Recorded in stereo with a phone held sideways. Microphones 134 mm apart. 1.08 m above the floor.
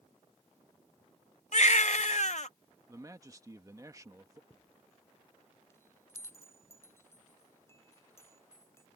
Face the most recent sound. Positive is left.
turn(degrees=20)  # may be behind; listen again after turning